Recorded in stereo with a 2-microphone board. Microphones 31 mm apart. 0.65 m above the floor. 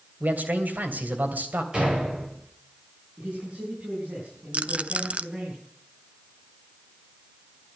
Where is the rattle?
45° right (ahead or behind), 0.6 m.